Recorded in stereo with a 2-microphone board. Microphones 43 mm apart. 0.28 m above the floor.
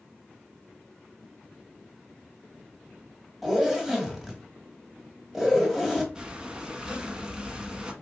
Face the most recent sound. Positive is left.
turn(degrees=-20)  # may be behind; listen again after turning